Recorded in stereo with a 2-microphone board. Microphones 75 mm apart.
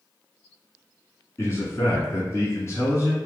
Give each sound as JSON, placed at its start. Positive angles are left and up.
{"t": 1.4, "sound": "a man speaking", "side_deg": 35, "distance_m": 1.3}